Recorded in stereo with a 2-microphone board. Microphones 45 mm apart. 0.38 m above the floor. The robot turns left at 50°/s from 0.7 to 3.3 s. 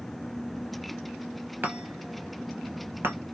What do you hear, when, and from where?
1.6 s a chime: 45° right (ahead or behind), 1.2 m; by 3.1 s 60° right (ahead or behind), 1.2 m